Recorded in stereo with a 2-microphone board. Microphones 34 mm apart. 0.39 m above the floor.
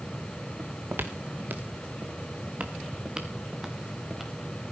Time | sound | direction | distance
0.6 | footsteps | 80° right | 2 m